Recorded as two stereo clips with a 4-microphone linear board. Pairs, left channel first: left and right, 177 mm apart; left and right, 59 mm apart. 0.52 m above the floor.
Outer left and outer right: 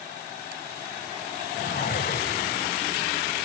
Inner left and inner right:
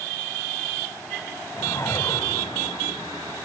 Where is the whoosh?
65° left (ahead or behind), 1.1 m.